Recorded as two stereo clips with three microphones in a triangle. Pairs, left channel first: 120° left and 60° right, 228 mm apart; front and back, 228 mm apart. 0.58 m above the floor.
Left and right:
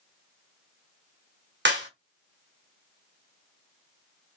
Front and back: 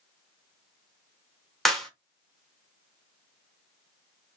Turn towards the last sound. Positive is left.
turn(degrees=-90)